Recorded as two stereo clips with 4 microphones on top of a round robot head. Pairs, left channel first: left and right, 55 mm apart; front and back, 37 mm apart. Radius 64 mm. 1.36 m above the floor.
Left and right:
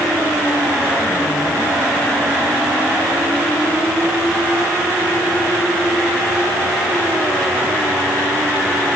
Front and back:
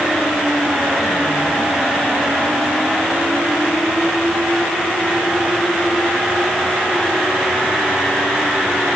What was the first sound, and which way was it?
Only background noise.